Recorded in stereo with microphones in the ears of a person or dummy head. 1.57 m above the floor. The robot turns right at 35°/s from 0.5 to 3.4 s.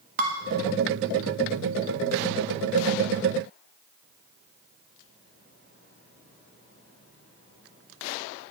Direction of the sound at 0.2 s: 40° right (ahead or behind).